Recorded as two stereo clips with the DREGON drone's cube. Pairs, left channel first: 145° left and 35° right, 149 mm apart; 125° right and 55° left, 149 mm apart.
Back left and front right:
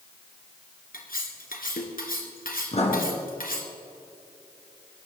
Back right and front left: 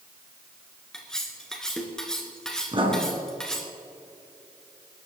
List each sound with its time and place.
0.9 s cutlery clinking: 150° left, 2.5 m
2.7 s writing: 105° left, 3 m